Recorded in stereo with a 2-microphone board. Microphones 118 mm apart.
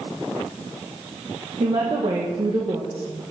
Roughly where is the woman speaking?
Right.